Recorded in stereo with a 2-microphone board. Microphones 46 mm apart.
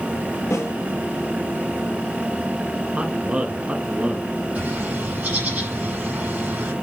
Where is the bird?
35° right (ahead or behind), 5.5 m.